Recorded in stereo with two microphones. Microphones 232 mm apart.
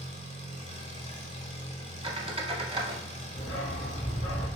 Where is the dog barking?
65° left (ahead or behind), 2 m.